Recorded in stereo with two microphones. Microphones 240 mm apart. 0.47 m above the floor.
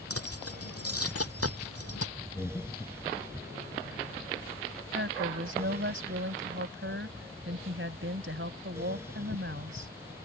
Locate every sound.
0.1 s keys jangling: 75° left (ahead or behind)
2.4 s breathing: 15° left (ahead or behind)
4.9 s a woman speaking: 55° right (ahead or behind)